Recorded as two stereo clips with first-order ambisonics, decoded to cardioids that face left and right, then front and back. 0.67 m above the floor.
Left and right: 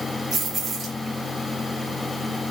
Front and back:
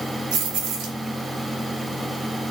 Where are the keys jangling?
165° right, 1.0 m.